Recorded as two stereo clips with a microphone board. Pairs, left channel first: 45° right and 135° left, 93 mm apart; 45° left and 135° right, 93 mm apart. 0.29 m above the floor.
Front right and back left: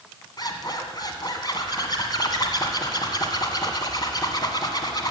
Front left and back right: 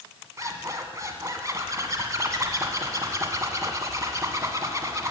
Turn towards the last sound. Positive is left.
turn(degrees=-85)